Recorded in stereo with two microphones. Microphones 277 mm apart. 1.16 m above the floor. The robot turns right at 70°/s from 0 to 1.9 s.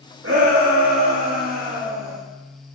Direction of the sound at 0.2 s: 125° right.